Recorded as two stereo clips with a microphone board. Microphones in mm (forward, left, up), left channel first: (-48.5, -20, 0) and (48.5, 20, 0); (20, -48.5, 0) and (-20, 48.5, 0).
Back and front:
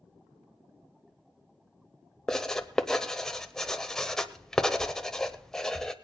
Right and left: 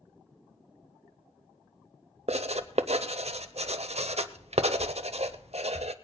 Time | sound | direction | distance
2.3 | writing | 120° left | 0.6 m